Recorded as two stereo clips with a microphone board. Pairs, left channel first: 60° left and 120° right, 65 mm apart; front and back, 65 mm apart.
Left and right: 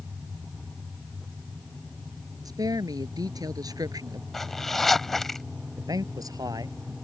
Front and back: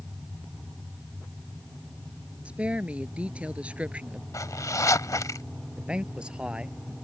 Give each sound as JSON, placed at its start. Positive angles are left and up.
{"t": 2.5, "sound": "a woman speaking", "azimuth_deg": -110}
{"t": 4.3, "sound": "a zipper", "azimuth_deg": -25}
{"t": 5.8, "sound": "a man speaking", "azimuth_deg": -105}